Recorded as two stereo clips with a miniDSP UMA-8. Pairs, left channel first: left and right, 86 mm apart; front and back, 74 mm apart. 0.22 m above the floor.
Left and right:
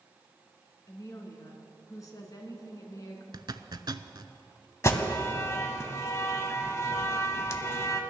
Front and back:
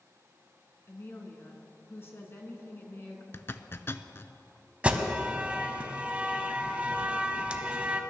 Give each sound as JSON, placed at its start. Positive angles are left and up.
{"t": 0.9, "sound": "a woman speaking", "azimuth_deg": 50, "distance_m": 2.0}
{"t": 3.3, "sound": "a zipper", "azimuth_deg": -55, "distance_m": 0.5}
{"t": 4.8, "sound": "an alarm", "azimuth_deg": 120, "distance_m": 0.9}